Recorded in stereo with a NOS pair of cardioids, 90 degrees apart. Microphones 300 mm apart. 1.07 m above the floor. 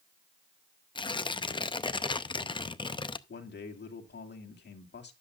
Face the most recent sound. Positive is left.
turn(degrees=35)